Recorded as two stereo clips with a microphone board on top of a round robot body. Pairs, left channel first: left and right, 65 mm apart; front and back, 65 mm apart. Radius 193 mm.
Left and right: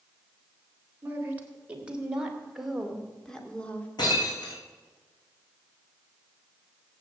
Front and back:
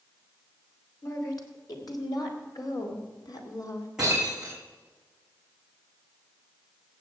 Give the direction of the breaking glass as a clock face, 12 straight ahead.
9 o'clock.